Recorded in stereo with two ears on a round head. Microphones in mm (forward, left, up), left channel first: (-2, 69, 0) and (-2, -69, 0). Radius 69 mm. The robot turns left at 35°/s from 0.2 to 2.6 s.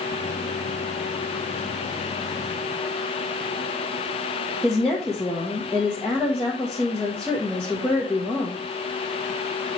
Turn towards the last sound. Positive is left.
turn(degrees=5)  # may be behind; listen again after turning